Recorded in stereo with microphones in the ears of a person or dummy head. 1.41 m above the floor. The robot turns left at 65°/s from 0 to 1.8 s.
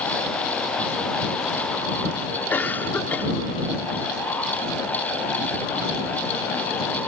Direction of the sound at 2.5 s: 15° left (ahead or behind).